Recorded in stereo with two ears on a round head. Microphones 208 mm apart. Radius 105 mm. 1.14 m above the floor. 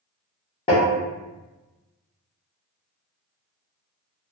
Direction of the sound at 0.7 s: 20° left (ahead or behind).